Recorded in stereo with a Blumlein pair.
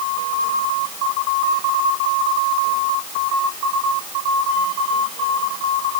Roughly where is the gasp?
I don't hear a gasp.